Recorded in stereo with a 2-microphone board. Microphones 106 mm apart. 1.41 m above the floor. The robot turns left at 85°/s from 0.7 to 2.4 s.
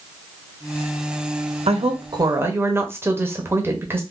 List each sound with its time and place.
1.7 s a woman speaking: 95° right, 0.9 m; by 4.0 s 155° right, 0.9 m